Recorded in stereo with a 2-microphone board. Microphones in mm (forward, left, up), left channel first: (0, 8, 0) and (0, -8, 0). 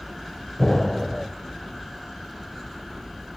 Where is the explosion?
20° left (ahead or behind), 1.9 m.